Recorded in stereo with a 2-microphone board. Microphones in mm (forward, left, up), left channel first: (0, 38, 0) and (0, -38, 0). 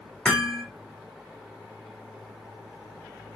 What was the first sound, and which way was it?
Hammering, 15° left (ahead or behind).